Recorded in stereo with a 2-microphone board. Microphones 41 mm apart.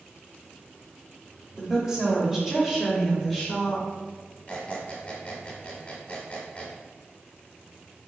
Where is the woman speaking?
15° right (ahead or behind), 1.7 m; by 3.9 s centre (ahead or behind), 1.3 m.